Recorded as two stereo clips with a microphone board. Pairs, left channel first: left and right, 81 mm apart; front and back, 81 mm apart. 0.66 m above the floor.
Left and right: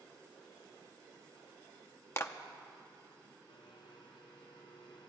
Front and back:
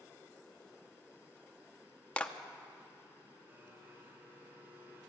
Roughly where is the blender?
Behind left.